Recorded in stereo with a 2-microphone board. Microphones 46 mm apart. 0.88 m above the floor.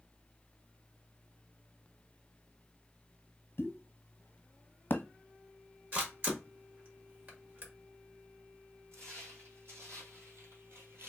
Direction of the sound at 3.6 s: 45° left (ahead or behind).